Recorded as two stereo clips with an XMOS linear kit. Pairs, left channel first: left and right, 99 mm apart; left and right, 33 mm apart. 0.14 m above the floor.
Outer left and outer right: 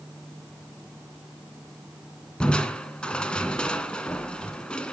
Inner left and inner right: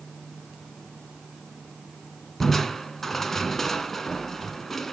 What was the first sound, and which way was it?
Crushing, 10° left (ahead or behind).